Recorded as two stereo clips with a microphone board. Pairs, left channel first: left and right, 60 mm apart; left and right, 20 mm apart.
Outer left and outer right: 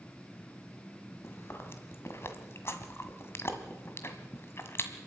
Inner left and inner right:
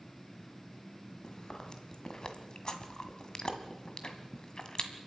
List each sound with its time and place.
1.2 s chewing: 45° left (ahead or behind), 1.7 m